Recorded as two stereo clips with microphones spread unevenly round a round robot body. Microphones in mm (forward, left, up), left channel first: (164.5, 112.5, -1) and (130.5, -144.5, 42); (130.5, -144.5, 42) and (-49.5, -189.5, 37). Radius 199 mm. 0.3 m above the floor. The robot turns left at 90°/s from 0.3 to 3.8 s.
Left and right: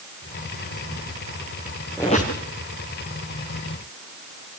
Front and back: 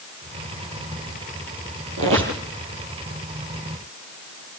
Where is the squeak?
170° left, 3 m; by 2.4 s 135° left, 3 m.